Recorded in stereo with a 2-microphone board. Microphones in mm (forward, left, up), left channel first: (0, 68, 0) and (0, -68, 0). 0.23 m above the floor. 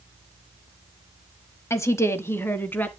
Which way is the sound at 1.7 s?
20° left (ahead or behind).